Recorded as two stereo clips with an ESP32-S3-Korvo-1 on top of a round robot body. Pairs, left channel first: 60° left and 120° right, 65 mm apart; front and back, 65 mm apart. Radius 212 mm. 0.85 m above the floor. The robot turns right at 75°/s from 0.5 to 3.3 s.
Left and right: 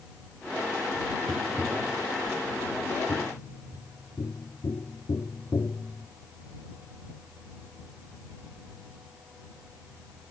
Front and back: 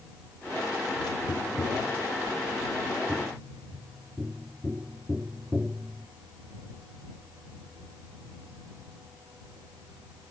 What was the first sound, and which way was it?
Tapping, 50° right.